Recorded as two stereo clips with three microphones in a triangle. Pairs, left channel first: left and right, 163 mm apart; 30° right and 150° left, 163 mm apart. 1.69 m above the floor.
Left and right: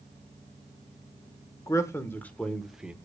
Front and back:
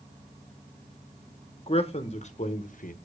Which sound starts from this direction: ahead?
A man speaking, at 1.7 s.